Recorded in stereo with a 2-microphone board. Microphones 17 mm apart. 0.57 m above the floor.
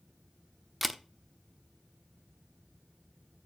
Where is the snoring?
No snoring in this recording.